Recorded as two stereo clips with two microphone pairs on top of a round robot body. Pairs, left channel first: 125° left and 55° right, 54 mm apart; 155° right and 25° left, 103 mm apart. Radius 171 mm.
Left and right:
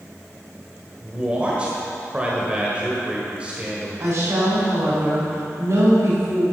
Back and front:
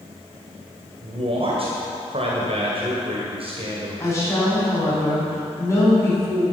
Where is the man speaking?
15° left, 2 m.